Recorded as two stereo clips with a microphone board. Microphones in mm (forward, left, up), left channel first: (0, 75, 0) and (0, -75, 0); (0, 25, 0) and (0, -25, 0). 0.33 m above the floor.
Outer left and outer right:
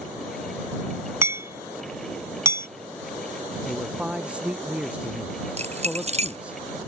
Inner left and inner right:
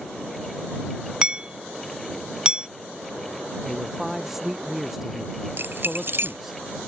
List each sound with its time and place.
1.2 s hammering: 20° right (ahead or behind)
3.6 s a man speaking: 10° right (ahead or behind)
5.6 s keys jangling: 50° right (ahead or behind)